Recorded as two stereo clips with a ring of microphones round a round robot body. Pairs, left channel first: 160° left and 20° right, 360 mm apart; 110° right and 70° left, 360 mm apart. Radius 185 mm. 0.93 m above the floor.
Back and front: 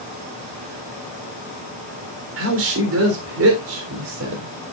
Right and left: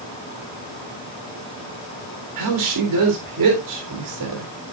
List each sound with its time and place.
2.4 s a woman speaking: 30° left, 3.5 m